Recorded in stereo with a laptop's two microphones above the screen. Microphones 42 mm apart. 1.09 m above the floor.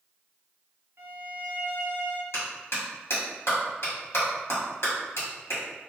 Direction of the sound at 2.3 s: 85° left.